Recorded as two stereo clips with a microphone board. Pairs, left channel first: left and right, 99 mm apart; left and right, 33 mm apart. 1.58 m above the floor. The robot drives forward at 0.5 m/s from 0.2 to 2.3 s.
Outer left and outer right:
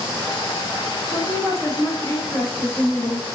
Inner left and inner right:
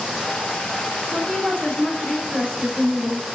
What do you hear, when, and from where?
1.1 s a woman speaking: 40° left (ahead or behind), 3.5 m; by 3.2 s 35° left (ahead or behind), 4 m